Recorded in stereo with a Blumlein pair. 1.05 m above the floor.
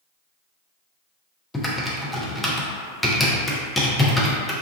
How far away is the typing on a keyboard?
About 0.6 m.